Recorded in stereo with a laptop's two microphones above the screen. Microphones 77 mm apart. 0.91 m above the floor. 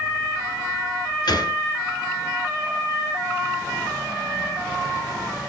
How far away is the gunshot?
About 2.5 m.